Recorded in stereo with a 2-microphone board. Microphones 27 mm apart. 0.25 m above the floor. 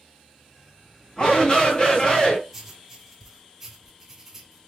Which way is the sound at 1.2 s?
30° left (ahead or behind).